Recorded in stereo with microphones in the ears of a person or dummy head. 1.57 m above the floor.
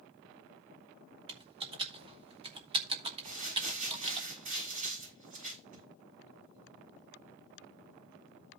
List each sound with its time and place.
1.3 s typing on a keyboard: 30° right (ahead or behind), 1.2 m
3.2 s crumpling: 50° right (ahead or behind), 6.5 m